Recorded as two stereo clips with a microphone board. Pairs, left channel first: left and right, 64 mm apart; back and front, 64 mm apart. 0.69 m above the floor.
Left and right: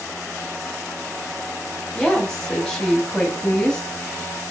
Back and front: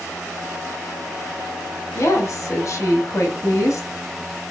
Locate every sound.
1.9 s a woman speaking: 170° left, 1.0 m